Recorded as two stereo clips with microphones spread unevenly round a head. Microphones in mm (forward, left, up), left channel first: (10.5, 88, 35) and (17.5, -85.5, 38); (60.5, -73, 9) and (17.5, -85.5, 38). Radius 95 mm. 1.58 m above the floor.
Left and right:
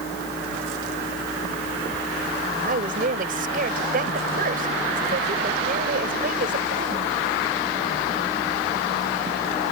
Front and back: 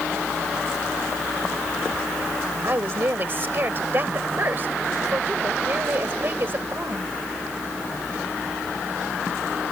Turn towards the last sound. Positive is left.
turn(degrees=-135)